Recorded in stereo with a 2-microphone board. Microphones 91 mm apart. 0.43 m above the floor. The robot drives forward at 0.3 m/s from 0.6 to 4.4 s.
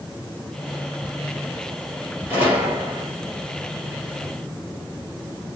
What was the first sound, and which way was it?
A gunshot, 20° right (ahead or behind).